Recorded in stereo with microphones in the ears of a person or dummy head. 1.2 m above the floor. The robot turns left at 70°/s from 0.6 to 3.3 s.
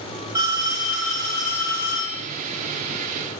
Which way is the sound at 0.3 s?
165° right.